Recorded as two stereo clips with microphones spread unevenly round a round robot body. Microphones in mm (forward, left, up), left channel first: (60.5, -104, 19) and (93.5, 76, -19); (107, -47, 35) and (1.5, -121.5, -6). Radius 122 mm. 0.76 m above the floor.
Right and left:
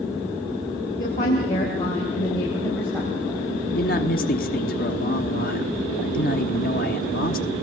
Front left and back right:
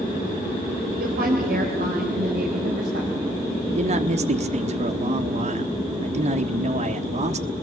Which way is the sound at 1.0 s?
160° right.